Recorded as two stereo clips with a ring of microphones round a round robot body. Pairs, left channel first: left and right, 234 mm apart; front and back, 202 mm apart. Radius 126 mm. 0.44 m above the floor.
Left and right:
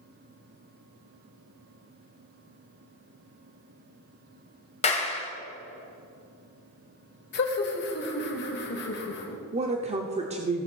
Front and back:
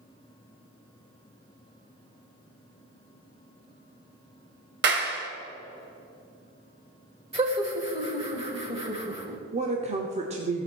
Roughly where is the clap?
Behind left.